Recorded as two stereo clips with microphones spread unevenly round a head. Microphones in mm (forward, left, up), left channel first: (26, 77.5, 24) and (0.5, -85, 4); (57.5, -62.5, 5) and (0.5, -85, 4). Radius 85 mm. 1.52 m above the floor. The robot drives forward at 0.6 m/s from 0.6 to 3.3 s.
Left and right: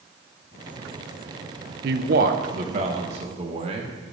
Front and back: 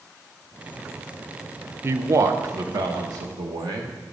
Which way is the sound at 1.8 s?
120° right.